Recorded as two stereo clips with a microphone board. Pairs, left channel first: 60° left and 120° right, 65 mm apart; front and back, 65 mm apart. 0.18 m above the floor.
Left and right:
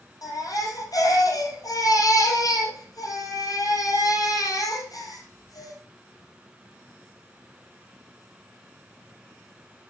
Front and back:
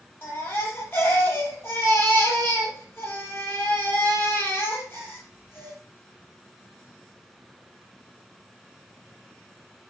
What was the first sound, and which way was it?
A baby crying, 50° left.